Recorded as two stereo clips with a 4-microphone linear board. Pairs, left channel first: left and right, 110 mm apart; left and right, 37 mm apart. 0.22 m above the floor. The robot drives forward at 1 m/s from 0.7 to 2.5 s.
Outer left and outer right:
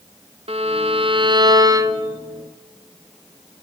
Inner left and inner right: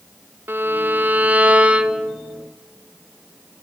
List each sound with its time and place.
0.5 s a violin: 65° right (ahead or behind), 0.8 m; by 2.2 s 25° right (ahead or behind), 1.7 m